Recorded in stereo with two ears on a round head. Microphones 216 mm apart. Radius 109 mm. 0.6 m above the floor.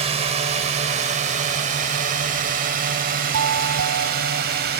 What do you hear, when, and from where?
0.0 s a drone: 25° right (ahead or behind); by 4.8 s 40° right (ahead or behind)
3.3 s a doorbell: 60° right (ahead or behind)